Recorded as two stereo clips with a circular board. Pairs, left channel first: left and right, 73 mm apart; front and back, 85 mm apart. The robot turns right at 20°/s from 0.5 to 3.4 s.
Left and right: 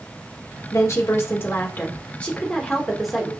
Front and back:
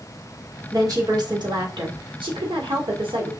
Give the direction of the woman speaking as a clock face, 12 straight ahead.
8 o'clock.